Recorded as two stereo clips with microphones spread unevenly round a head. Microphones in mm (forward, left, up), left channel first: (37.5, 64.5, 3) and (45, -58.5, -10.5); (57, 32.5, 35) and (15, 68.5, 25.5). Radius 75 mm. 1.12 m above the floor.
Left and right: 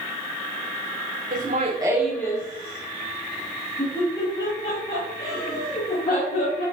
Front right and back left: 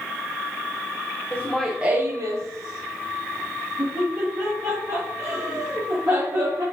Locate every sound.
1.3 s laughter: 115° right, 0.7 m; by 6.6 s 120° left, 3.5 m